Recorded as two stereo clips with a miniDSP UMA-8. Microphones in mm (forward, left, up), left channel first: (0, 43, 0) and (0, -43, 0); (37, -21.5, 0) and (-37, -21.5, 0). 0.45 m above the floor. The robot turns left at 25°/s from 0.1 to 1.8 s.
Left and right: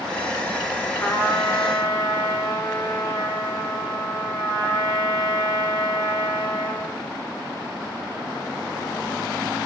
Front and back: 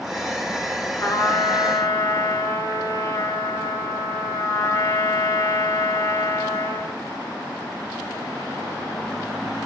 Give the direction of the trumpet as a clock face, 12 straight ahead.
11 o'clock.